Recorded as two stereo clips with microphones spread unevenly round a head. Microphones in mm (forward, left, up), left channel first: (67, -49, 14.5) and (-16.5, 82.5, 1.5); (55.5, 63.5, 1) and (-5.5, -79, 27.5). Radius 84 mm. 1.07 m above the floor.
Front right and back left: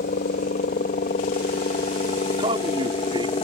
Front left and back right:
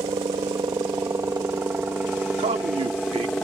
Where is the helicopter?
50° right; by 3.5 s 15° right.